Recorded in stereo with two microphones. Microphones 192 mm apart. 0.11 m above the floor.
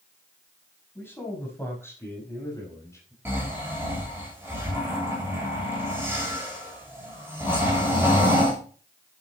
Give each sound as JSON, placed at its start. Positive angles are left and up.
{"t": 0.9, "sound": "a man speaking", "side_deg": 10, "distance_m": 7.0}
{"t": 3.2, "sound": "snoring", "side_deg": -10, "distance_m": 6.5}